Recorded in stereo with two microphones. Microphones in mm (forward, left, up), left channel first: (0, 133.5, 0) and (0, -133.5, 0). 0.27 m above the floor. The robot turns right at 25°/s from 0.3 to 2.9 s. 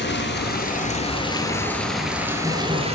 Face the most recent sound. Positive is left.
turn(degrees=-155)